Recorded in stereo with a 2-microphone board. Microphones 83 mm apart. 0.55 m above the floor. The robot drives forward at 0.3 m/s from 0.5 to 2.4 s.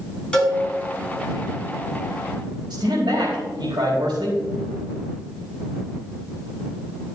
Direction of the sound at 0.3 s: 15° left (ahead or behind).